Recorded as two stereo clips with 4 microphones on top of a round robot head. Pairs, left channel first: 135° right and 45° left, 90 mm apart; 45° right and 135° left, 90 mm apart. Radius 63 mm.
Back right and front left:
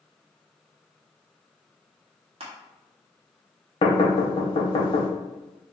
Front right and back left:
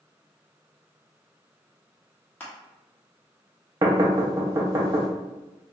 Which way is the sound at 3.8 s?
170° right.